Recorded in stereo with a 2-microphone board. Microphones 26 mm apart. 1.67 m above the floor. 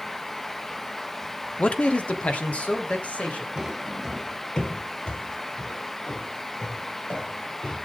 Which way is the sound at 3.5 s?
20° right (ahead or behind).